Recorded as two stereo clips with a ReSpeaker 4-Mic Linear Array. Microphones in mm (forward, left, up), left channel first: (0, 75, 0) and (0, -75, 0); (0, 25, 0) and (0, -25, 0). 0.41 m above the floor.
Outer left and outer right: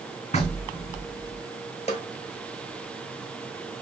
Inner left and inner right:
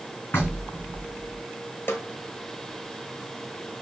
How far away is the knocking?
About 3 m.